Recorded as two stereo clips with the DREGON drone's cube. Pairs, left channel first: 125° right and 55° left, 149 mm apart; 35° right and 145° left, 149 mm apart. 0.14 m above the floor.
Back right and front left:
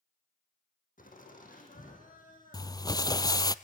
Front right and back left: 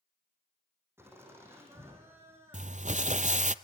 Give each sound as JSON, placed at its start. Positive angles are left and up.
{"t": 1.0, "sound": "laughter", "azimuth_deg": -140, "distance_m": 5.5}
{"t": 2.5, "sound": "crumpling", "azimuth_deg": 175, "distance_m": 0.6}